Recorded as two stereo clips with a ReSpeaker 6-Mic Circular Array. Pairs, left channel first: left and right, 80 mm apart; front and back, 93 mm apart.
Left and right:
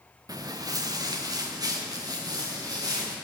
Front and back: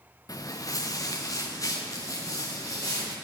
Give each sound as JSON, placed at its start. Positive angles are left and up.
{"t": 0.3, "sound": "footsteps", "azimuth_deg": -50, "distance_m": 0.8}